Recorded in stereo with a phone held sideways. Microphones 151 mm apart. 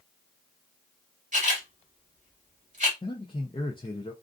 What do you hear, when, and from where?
1.3 s a camera shutter: 50° right (ahead or behind), 1.1 m
3.0 s a man speaking: 30° left (ahead or behind), 0.5 m